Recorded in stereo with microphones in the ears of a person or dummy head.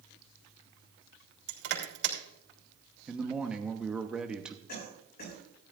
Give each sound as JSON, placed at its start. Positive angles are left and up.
{"t": 1.5, "sound": "crushing", "side_deg": -60, "distance_m": 3.0}
{"t": 3.1, "sound": "a man speaking", "side_deg": 0, "distance_m": 1.0}
{"t": 4.7, "sound": "a cough", "side_deg": 55, "distance_m": 6.0}